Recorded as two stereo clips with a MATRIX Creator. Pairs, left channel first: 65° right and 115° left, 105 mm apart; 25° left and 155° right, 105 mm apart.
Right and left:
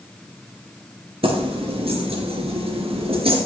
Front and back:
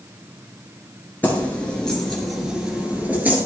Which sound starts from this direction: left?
Keys jangling, at 1.2 s.